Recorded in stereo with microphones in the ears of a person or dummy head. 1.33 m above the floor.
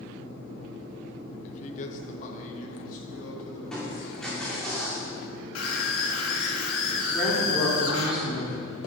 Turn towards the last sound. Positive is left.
turn(degrees=15)  # may be behind; listen again after turning